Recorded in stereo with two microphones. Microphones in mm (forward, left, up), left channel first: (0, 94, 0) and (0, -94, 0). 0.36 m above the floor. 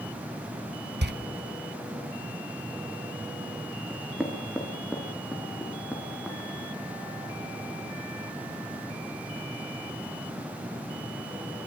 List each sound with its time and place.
1.0 s a door slam: 65° right (ahead or behind), 1.1 m
3.9 s knocking: centre (ahead or behind), 5 m